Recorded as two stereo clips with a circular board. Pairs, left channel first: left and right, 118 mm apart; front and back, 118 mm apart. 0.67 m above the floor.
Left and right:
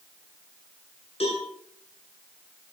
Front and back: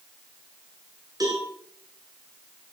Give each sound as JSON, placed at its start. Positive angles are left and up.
{"t": 1.2, "sound": "a cowbell", "azimuth_deg": 120, "distance_m": 7.5}